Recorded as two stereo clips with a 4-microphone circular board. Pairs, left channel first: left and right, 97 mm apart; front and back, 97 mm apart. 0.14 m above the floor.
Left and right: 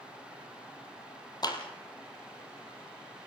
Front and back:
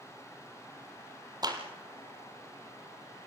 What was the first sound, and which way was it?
A clap, 135° left.